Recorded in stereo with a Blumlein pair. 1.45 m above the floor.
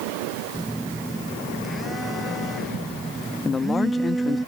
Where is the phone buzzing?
5° right.